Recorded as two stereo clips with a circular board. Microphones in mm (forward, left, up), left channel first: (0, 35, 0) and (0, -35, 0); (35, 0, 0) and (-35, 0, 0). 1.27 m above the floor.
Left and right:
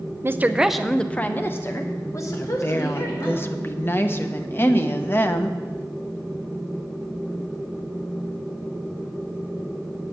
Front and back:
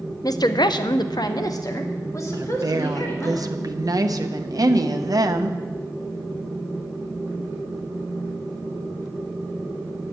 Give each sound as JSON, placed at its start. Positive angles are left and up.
{"t": 0.2, "sound": "a woman speaking", "azimuth_deg": -35, "distance_m": 0.6}
{"t": 2.3, "sound": "a woman speaking", "azimuth_deg": 150, "distance_m": 0.9}